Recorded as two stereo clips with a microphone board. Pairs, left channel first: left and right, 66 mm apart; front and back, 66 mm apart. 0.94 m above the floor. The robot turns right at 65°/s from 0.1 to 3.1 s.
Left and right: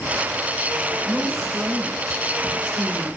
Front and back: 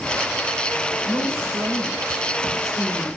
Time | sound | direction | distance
1.0 | a woman speaking | 160° left | 3 m